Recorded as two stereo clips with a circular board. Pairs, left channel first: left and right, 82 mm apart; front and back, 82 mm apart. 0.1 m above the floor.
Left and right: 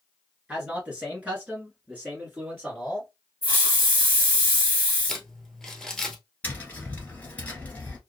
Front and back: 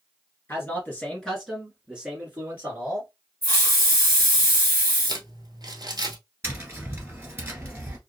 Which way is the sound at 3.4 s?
45° right.